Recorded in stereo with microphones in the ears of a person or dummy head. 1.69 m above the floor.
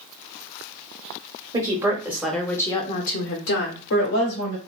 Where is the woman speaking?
20° right (ahead or behind), 0.9 m; by 4.6 s 80° left, 0.9 m.